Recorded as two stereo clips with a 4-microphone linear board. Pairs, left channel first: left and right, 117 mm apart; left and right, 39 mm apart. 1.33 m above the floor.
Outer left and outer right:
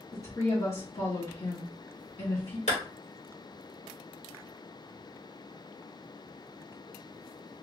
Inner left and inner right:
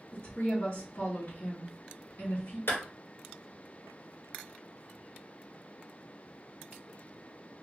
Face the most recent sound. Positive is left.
turn(degrees=80)